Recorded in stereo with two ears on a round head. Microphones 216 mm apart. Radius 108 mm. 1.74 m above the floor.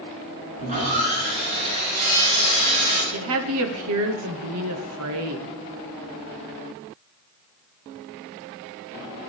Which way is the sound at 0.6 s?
35° right (ahead or behind).